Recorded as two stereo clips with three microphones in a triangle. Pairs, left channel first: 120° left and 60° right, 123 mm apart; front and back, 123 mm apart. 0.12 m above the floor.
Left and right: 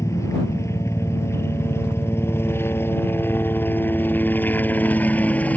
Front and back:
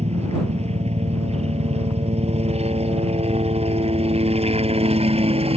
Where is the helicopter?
Straight behind; by 5.6 s 165° right.